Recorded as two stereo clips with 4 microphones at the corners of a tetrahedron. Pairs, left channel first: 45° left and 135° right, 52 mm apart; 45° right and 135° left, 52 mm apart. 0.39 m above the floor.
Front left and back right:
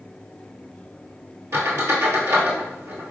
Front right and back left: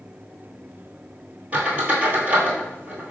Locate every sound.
1.5 s a squeak: 165° right, 1.2 m